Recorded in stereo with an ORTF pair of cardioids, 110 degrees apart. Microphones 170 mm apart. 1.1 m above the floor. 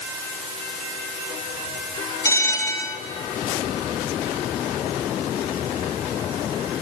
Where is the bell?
15° left, 1.7 m.